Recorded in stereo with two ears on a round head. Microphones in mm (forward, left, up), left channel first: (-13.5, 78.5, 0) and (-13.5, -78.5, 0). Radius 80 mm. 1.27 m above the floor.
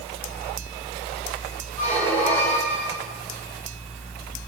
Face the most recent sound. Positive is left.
turn(degrees=10)  # may be behind; listen again after turning